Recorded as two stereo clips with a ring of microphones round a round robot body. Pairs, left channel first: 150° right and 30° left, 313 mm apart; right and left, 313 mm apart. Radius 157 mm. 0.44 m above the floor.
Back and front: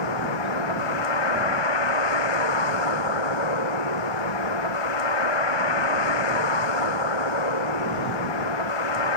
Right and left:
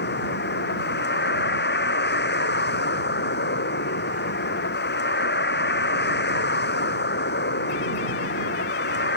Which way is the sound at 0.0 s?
150° right.